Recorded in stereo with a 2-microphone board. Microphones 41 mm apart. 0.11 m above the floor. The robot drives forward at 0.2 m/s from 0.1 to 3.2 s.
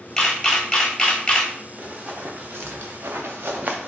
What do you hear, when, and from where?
0.2 s a camera shutter: 15° left (ahead or behind), 0.9 m; by 1.5 s 25° left (ahead or behind), 0.7 m
1.8 s running footsteps: 45° right (ahead or behind), 1.1 m; by 3.9 s 40° right (ahead or behind), 0.6 m